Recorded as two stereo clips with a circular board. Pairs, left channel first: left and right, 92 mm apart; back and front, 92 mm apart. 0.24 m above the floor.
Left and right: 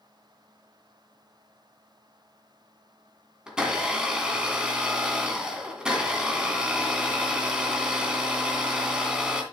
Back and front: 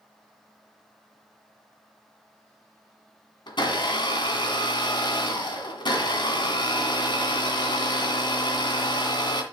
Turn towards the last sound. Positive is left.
turn(degrees=-170)